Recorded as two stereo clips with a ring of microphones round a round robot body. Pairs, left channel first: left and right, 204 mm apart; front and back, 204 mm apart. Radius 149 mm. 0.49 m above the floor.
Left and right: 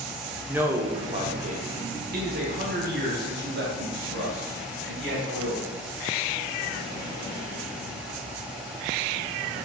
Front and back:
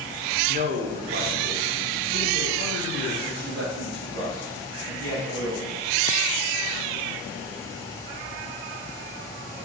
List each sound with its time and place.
0.5 s a man speaking: 170° right, 0.9 m; by 5.8 s 130° right, 4 m